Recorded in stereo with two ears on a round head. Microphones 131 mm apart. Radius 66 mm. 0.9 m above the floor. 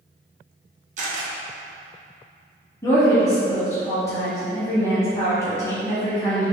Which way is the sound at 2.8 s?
20° left (ahead or behind).